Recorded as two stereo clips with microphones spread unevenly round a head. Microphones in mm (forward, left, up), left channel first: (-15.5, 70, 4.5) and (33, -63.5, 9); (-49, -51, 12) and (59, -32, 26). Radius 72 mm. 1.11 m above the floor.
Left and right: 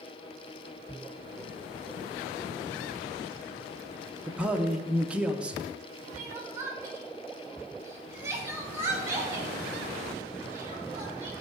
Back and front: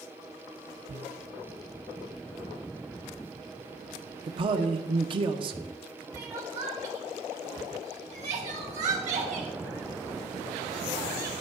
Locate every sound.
4.3 s a man speaking: 10° left, 0.8 m
6.1 s crying: straight ahead, 2 m